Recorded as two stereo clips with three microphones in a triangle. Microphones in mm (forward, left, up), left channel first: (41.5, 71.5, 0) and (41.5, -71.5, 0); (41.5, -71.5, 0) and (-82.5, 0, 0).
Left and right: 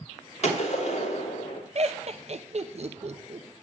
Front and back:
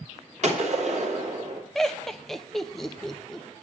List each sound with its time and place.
0.4 s a gunshot: 125° left, 2.5 m
1.8 s laughter: 115° right, 0.9 m